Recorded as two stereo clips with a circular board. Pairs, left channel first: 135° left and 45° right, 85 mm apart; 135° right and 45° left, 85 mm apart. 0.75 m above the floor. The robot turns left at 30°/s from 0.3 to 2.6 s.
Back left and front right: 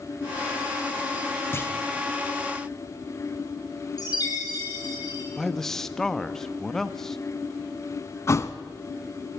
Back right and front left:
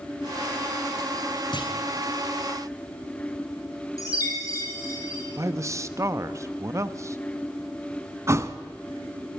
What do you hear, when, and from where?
1.5 s a clunk: 165° right, 3 m; by 1.7 s 170° right, 3 m
4.0 s a chime: 175° left, 6.5 m
5.4 s a man speaking: 55° left, 0.9 m
8.3 s a thud: 90° left, 0.9 m